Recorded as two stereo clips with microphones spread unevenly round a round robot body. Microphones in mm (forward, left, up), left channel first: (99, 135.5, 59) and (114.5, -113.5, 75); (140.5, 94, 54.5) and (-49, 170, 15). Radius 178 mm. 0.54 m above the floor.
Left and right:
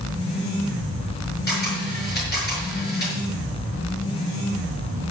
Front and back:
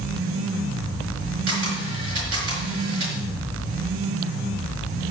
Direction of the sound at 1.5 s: 175° left.